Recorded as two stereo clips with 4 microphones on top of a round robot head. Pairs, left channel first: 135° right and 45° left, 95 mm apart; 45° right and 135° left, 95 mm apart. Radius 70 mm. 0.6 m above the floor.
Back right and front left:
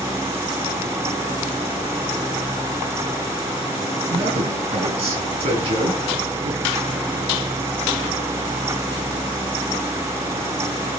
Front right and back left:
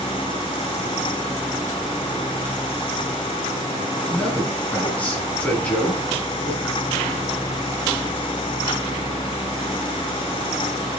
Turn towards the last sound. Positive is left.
turn(degrees=30)